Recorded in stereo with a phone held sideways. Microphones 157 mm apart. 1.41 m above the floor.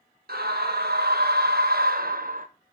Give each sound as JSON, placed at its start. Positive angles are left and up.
{"t": 0.3, "sound": "a scream", "side_deg": -85, "distance_m": 1.8}